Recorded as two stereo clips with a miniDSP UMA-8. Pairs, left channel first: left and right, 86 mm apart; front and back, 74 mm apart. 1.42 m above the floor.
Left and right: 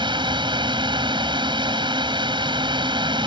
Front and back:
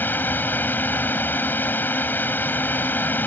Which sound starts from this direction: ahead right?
A drone, at 0.0 s.